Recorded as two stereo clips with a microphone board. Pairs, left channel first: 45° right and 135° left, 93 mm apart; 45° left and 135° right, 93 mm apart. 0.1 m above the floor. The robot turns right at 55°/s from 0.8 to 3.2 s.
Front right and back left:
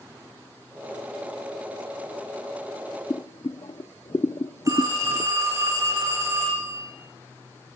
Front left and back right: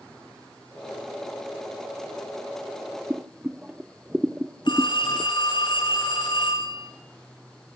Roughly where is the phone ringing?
Left.